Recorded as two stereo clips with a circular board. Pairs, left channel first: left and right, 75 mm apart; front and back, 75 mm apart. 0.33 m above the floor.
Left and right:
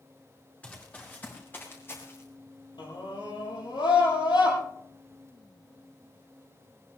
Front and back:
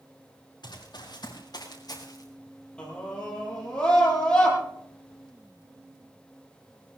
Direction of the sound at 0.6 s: 20° left.